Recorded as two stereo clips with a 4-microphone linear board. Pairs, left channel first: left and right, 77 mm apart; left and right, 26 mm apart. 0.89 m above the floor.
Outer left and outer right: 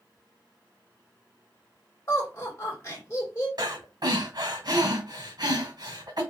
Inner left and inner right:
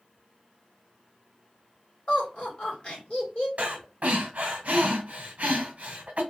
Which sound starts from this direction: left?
Laughter, at 2.1 s.